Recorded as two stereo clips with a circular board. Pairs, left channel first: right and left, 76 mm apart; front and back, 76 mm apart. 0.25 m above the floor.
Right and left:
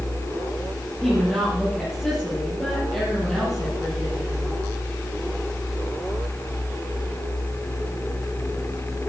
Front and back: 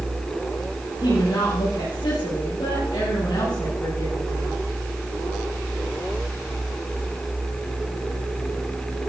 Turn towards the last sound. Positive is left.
turn(degrees=-5)